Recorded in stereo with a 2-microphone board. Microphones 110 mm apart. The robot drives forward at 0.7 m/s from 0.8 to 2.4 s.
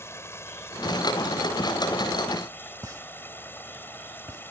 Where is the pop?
30° right (ahead or behind).